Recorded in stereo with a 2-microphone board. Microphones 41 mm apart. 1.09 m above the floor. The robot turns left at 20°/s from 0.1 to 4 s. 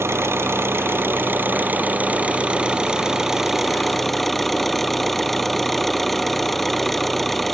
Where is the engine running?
105° right; by 7.5 s 175° left.